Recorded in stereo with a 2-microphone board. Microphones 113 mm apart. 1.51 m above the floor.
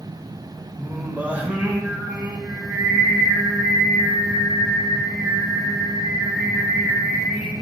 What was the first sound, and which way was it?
Singing, 15° right (ahead or behind).